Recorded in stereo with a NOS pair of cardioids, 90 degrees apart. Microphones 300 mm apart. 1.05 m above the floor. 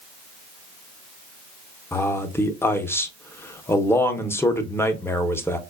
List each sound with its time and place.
1.9 s a man speaking: 10° left, 0.6 m